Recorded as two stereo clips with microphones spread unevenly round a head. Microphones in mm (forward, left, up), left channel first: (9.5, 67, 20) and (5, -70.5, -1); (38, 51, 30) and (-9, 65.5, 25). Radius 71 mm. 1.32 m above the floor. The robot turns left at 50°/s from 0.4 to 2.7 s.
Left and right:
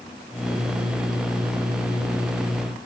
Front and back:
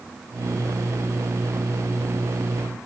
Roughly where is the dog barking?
I don't hear a dog barking.